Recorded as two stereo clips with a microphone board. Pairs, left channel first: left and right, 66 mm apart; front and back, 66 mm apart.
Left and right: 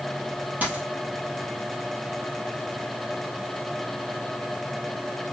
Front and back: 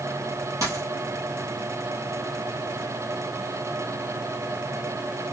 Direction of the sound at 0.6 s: 155° right.